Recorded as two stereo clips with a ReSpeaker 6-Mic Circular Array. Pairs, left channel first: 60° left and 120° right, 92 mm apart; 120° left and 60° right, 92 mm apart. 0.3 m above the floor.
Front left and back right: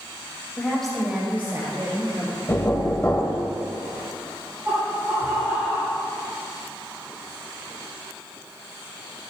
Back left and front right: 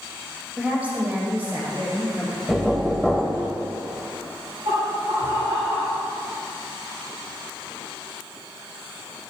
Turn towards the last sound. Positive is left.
turn(degrees=-55)